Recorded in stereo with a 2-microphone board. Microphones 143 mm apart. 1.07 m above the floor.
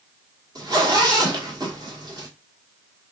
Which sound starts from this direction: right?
A zipper, at 0.6 s.